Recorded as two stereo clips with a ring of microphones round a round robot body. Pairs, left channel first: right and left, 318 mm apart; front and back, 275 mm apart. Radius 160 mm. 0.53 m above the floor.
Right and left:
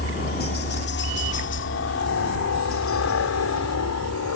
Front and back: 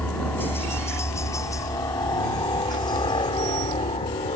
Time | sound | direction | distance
0.0 | a helicopter | 80° right | ?